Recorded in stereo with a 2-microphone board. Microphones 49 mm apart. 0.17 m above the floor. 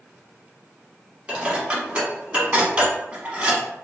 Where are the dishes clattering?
20° right (ahead or behind), 0.8 m.